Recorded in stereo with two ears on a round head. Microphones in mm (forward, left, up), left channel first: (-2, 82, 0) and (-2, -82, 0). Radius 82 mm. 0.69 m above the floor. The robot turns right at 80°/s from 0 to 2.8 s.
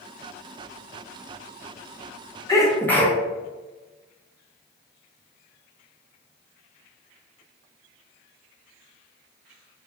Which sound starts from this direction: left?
A sneeze, at 2.5 s.